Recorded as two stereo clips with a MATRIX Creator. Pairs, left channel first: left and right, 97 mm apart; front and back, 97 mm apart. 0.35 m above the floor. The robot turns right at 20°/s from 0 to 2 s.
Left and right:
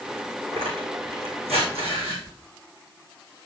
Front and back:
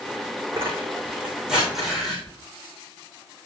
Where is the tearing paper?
115° right, 5.5 m; by 2.2 s 85° right, 5.5 m.